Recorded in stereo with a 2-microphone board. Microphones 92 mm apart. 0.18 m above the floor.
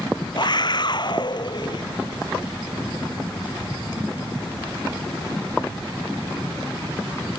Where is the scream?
50° left (ahead or behind).